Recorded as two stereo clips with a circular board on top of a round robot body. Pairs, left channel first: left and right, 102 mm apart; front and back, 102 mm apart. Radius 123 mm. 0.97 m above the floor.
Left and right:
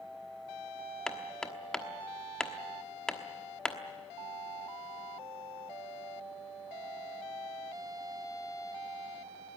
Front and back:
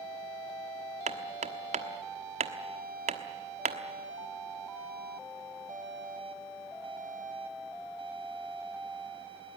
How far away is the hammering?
About 1.2 m.